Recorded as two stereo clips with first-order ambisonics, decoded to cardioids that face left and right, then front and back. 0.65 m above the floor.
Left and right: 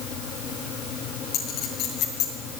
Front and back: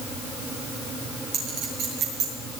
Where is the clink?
140° left, 6.5 m.